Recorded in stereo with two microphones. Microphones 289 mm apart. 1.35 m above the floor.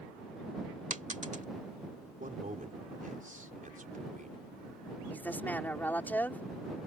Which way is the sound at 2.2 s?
30° right (ahead or behind).